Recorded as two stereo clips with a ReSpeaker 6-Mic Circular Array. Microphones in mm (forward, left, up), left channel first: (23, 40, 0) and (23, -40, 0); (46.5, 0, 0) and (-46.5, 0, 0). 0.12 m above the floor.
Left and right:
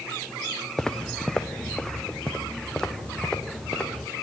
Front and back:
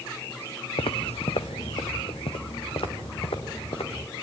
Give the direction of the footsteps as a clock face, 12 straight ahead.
12 o'clock.